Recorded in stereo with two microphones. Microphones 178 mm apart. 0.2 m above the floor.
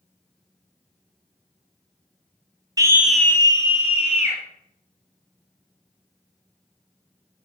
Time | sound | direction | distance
2.8 | a scream | 25° right (ahead or behind) | 1.0 m